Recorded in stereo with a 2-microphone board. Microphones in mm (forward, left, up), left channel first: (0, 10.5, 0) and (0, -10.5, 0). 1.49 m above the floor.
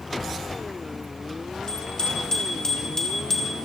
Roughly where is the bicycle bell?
Left.